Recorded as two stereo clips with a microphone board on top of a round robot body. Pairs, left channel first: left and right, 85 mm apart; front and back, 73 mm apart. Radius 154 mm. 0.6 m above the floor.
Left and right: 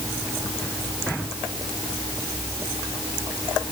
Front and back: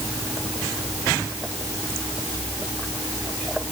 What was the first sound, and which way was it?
Only background noise.